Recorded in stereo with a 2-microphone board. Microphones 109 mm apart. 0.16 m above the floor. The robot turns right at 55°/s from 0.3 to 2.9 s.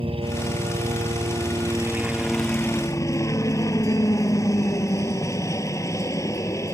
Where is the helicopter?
110° right; by 6.8 s 35° left.